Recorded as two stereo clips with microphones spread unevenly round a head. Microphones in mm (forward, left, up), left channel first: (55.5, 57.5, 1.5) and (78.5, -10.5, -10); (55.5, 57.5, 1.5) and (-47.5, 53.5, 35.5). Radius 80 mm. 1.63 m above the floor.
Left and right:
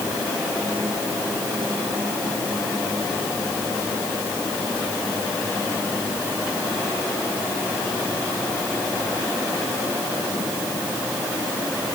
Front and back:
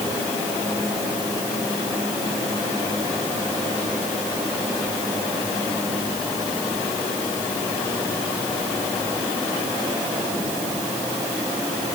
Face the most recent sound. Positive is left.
No sound to turn to.